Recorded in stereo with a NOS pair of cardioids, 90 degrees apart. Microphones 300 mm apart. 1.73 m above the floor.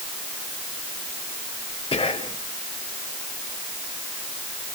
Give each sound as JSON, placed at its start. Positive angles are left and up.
{"t": 1.9, "sound": "whispering", "azimuth_deg": 20, "distance_m": 1.2}